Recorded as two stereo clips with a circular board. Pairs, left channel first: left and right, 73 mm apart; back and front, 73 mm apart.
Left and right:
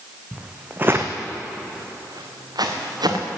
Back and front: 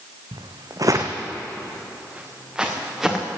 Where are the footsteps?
10° right, 1.6 m; by 3.2 s 90° right, 3.5 m.